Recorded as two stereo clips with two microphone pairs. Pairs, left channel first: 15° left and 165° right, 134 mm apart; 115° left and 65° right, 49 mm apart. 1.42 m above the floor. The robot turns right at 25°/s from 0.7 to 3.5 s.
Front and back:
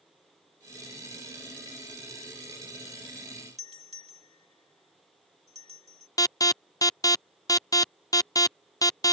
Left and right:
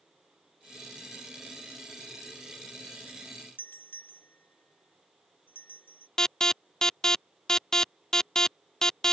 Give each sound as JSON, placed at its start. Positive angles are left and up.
{"t": 3.6, "sound": "a doorbell", "azimuth_deg": 160}
{"t": 6.2, "sound": "an alarm", "azimuth_deg": 45}